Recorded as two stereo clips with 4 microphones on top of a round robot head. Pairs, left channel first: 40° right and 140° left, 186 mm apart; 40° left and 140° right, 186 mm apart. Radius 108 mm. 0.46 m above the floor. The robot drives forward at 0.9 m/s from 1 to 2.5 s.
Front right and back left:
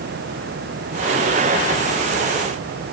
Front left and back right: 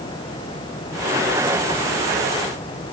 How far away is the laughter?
No laughter in this recording.